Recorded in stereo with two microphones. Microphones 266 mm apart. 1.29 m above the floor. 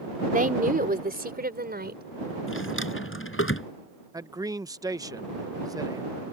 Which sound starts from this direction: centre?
A man speaking, at 4.1 s.